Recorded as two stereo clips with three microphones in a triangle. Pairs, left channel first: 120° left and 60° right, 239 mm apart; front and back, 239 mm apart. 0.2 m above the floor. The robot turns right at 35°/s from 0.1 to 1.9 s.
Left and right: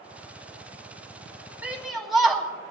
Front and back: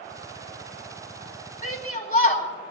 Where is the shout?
20° left, 1.5 m; by 2.5 s 30° left, 1.5 m.